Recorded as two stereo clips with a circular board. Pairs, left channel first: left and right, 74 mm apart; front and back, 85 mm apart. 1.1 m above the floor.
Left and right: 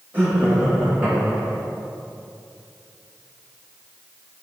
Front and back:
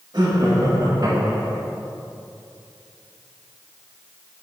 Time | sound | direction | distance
0.1 | laughter | 150° right | 2 m